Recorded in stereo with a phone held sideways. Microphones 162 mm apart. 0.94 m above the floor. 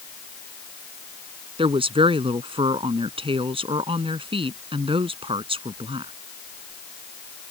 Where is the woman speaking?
35° right (ahead or behind).